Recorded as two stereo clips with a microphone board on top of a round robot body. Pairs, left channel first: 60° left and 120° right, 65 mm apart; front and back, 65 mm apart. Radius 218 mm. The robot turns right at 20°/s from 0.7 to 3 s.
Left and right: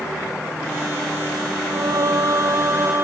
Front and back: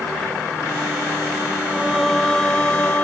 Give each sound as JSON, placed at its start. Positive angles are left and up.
{"t": 1.6, "sound": "singing", "azimuth_deg": -95}